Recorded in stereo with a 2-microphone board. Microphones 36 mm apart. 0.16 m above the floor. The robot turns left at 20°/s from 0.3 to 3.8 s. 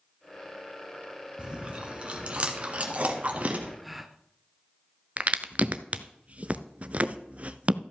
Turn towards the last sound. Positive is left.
turn(degrees=-40)  # may be behind; listen again after turning